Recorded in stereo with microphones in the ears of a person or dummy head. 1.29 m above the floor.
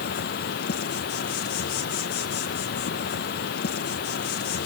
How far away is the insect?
About 1.2 m.